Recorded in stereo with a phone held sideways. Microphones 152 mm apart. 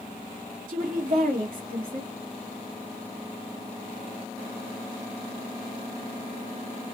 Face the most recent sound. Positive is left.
turn(degrees=-60)  # may be behind; listen again after turning